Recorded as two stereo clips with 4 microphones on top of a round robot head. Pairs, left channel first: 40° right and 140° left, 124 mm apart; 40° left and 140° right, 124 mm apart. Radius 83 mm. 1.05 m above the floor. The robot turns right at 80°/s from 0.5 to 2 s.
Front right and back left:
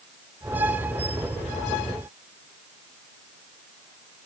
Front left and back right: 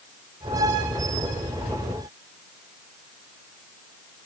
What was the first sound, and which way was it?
Only background noise.